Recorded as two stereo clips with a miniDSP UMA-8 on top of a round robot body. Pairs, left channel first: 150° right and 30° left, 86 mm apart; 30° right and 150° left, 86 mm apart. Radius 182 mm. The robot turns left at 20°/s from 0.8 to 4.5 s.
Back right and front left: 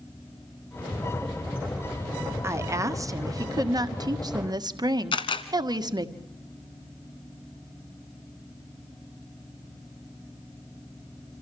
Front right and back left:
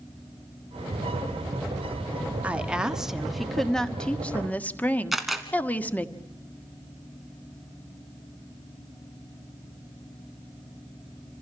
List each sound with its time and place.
2.4 s a woman speaking: 80° left, 1.7 m; by 6.1 s 35° left, 1.7 m
5.1 s a camera shutter: 120° right, 1.0 m